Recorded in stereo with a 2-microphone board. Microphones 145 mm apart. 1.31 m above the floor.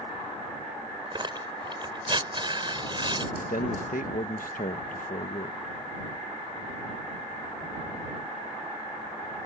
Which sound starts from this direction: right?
Tearing paper, at 1.1 s.